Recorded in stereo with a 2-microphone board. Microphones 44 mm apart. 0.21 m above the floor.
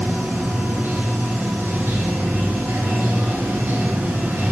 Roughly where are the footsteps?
No footsteps in this recording.